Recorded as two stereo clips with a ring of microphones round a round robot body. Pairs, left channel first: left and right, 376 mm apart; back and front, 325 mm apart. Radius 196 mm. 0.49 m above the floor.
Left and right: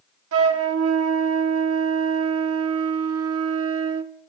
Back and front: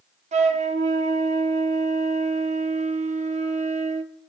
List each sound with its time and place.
0.3 s a flute: 60° right, 0.9 m